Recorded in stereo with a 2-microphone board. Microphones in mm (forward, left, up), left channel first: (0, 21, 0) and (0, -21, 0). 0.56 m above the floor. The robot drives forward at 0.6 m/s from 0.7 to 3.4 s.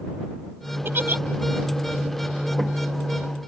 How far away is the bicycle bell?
I don't hear a bicycle bell.